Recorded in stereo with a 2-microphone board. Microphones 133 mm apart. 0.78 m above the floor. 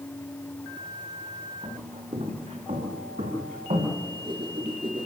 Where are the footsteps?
60° right (ahead or behind), 6 m; by 4.0 s 80° right, 6.5 m.